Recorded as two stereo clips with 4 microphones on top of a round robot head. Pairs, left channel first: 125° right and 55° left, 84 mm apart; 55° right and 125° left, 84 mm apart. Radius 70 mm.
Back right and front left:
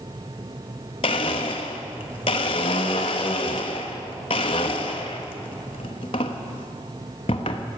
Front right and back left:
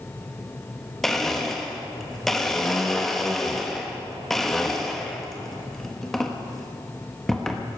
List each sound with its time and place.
1.0 s a blender: 145° right, 0.9 m